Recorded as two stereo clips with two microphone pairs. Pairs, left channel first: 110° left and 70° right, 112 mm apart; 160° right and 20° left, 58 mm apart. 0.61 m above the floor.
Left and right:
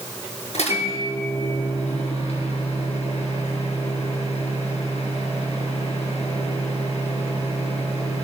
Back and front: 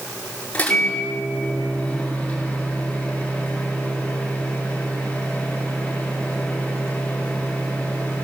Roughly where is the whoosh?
No whoosh in this recording.